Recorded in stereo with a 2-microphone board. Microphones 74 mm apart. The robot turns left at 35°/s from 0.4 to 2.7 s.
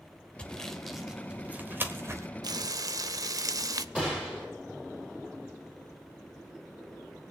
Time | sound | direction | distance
0.4 | sawing | 15° left (ahead or behind) | 1.2 m
2.4 | frying | 60° right (ahead or behind) | 0.5 m
4.0 | a gunshot | 15° right (ahead or behind) | 5.5 m